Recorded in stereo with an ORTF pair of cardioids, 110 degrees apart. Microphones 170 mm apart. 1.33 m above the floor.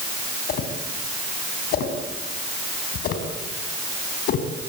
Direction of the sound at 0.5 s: 65° left.